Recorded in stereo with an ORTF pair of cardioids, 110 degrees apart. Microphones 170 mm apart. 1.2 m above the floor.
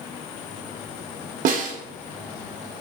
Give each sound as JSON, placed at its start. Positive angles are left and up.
{"t": 1.4, "sound": "a snare drum", "azimuth_deg": -55, "distance_m": 0.9}